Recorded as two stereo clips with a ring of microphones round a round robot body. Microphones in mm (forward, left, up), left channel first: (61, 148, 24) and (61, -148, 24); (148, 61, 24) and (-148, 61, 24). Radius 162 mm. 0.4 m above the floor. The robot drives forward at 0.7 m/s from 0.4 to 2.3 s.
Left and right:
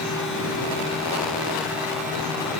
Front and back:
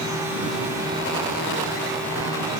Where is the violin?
I don't hear a violin.